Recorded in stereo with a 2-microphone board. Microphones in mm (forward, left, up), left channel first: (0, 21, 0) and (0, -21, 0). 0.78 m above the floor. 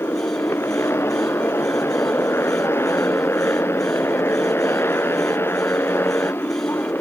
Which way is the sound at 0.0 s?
85° left.